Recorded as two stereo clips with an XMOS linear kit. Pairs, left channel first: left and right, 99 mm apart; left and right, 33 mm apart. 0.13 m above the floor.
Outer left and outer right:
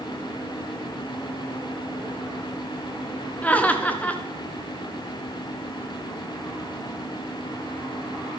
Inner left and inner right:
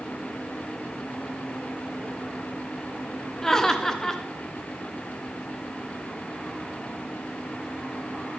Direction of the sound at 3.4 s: 15° left (ahead or behind).